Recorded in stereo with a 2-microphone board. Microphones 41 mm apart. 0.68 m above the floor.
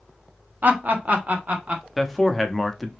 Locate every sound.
0.6 s laughter: 45° right (ahead or behind), 0.9 m; by 1.8 s 35° right (ahead or behind), 1.4 m
2.0 s a man speaking: centre (ahead or behind), 0.7 m